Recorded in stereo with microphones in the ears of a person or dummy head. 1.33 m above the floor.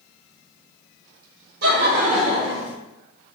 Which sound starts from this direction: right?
Laughter, at 1.6 s.